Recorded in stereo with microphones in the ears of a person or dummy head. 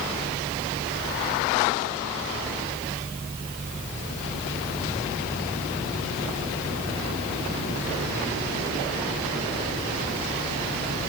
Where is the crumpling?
No crumpling in this recording.